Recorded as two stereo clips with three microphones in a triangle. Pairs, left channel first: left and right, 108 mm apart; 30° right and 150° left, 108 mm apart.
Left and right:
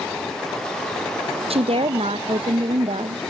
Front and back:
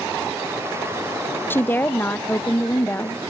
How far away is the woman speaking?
About 0.5 m.